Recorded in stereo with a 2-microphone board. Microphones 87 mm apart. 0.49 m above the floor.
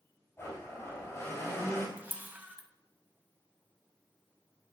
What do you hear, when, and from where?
0.4 s a blender: 35° left (ahead or behind), 4 m
2.0 s a camera shutter: 20° right (ahead or behind), 0.9 m